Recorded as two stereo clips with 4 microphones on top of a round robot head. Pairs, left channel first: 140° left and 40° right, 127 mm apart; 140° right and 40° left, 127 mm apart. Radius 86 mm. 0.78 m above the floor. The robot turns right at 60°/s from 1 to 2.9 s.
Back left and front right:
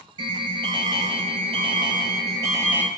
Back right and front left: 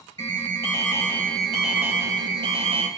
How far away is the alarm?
About 1.9 m.